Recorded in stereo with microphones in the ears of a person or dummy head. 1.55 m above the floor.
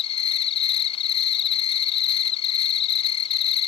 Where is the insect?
40° left (ahead or behind).